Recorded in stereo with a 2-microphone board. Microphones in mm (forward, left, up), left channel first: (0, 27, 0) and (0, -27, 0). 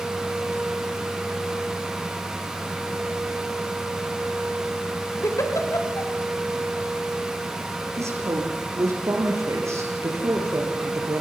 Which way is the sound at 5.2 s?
65° left (ahead or behind).